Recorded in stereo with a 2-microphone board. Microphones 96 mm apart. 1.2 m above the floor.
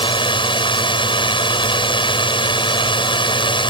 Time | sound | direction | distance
0.0 | a drone | 60° left (ahead or behind) | ?